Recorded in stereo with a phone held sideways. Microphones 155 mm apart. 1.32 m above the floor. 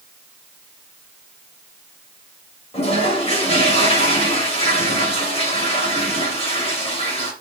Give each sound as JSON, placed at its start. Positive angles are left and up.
{"t": 2.7, "sound": "a toilet flushing", "side_deg": 40, "distance_m": 2.5}